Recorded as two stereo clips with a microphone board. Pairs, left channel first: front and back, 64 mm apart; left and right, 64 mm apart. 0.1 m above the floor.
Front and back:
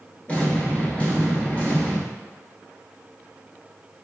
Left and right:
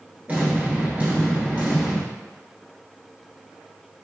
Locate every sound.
0.3 s an explosion: 45° right, 1.0 m